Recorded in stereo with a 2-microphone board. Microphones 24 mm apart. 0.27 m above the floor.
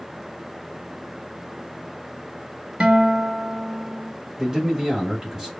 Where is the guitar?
55° right (ahead or behind), 0.5 m.